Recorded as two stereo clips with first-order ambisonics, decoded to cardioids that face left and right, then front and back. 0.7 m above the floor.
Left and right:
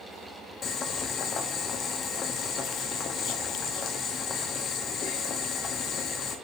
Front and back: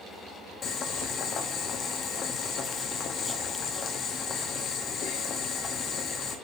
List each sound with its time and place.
0.6 s boiling: 45° left, 1.0 m